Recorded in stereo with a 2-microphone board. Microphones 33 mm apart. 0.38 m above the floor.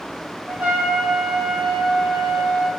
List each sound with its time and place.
0.5 s a trumpet: 45° right (ahead or behind), 0.9 m